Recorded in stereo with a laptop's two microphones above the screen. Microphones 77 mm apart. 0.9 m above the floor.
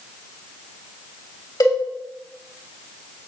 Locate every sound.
1.6 s a cowbell: 60° left (ahead or behind), 3 m